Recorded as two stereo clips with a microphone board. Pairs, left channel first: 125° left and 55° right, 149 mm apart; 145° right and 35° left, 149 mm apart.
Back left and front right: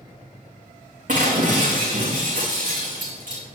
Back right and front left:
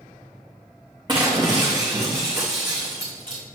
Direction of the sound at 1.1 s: 25° right.